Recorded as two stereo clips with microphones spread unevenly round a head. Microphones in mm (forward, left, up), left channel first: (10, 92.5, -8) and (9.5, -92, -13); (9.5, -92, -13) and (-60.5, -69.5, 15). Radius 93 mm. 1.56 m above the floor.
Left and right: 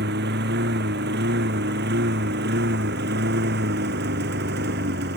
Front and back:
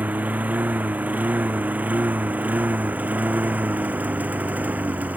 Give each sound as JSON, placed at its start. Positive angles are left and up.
{"t": 0.0, "sound": "a lawn mower", "azimuth_deg": -130}